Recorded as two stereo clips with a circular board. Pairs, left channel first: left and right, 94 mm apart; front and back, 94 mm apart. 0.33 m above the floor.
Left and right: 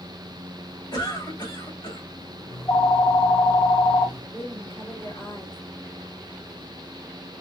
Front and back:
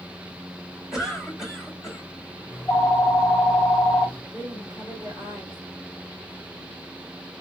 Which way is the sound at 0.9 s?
95° left.